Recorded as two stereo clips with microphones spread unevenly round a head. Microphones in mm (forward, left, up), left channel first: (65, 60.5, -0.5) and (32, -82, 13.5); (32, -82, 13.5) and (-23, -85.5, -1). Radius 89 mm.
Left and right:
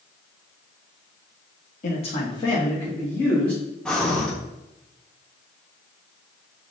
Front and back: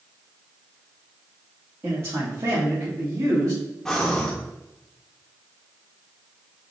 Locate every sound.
1.8 s a man speaking: 120° left, 0.7 m; by 3.6 s 160° left, 2.0 m
3.9 s breathing: 15° right, 0.9 m